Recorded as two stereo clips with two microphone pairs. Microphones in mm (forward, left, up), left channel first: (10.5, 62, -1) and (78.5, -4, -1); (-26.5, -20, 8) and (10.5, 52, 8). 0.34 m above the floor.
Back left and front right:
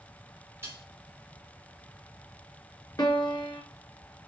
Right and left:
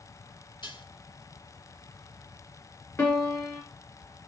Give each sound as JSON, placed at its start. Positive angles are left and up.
{"t": 0.6, "sound": "dishes clattering", "azimuth_deg": -110, "distance_m": 5.5}
{"t": 3.0, "sound": "a piano", "azimuth_deg": -175, "distance_m": 2.5}